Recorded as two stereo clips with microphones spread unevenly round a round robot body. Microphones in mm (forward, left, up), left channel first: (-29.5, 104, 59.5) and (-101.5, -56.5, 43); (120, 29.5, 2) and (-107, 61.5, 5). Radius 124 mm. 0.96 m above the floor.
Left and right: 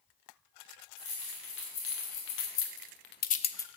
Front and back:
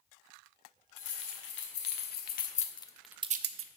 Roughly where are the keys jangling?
Ahead left.